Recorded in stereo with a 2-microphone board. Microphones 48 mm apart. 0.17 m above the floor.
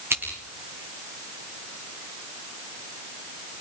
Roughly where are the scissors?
Right.